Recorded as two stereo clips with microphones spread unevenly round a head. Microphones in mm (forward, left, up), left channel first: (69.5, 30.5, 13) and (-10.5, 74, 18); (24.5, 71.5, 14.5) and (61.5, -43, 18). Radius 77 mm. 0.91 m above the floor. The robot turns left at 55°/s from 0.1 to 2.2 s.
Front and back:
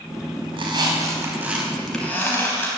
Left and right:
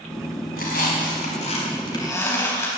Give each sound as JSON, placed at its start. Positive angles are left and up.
{"t": 0.5, "sound": "a squeak", "azimuth_deg": 130, "distance_m": 4.0}